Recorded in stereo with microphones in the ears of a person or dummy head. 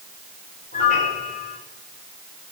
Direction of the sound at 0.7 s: 40° left (ahead or behind).